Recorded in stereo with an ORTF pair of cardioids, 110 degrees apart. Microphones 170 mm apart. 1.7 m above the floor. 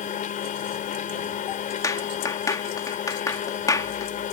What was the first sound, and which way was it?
A machine running, 50° left.